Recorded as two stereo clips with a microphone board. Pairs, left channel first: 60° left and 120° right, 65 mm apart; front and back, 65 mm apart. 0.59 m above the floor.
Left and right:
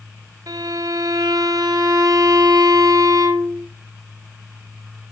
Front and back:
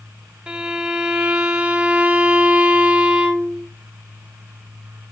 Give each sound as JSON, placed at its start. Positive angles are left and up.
{"t": 0.5, "sound": "a violin", "azimuth_deg": -105, "distance_m": 0.9}